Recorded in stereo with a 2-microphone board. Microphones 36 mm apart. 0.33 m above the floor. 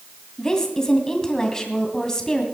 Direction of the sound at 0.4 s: 20° left (ahead or behind).